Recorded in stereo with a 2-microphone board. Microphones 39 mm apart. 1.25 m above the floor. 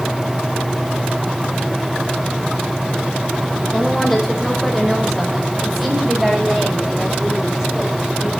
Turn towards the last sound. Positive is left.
turn(degrees=-15)  # may be behind; listen again after turning